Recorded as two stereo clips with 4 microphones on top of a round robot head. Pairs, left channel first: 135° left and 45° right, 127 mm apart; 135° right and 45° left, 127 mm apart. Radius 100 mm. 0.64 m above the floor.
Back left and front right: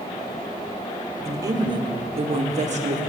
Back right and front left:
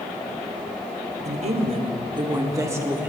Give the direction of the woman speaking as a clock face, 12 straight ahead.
11 o'clock.